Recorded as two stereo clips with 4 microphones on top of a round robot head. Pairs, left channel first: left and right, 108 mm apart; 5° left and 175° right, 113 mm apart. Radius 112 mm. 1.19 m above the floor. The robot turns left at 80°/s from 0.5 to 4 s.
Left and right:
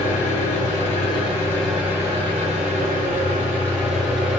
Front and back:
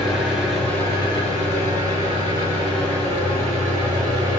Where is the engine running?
100° left, 1.5 m; by 4.4 s straight behind, 1.5 m.